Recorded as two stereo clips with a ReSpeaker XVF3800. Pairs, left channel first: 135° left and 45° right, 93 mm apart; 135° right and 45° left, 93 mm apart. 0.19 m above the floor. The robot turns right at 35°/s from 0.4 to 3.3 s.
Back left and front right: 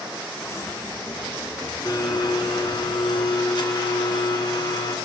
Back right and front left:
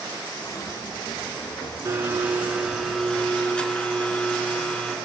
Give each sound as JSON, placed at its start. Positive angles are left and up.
{"t": 1.9, "sound": "a blender", "azimuth_deg": 100, "distance_m": 2.5}